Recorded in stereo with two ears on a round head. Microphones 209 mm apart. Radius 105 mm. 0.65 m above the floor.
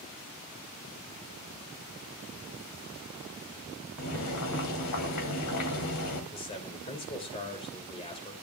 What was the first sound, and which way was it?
Boiling, 80° left.